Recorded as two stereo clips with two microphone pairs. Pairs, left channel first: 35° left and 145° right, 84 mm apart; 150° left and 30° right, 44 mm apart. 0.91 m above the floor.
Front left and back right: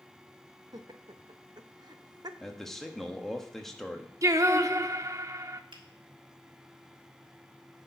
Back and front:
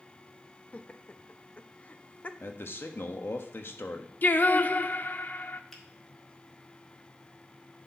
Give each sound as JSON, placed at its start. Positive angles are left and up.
{"t": 0.7, "sound": "laughter", "azimuth_deg": -160, "distance_m": 0.8}
{"t": 2.4, "sound": "a man speaking", "azimuth_deg": 125, "distance_m": 1.2}
{"t": 4.2, "sound": "singing", "azimuth_deg": 180, "distance_m": 0.6}
{"t": 5.7, "sound": "a finger snap", "azimuth_deg": -125, "distance_m": 1.8}